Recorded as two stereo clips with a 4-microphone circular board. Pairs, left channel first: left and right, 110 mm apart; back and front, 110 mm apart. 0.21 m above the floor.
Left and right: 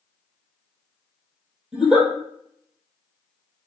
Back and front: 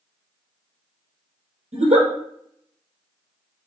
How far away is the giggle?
About 2 m.